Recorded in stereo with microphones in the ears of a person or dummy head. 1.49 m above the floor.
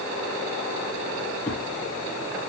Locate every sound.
1.5 s a thud: 5° left (ahead or behind), 2 m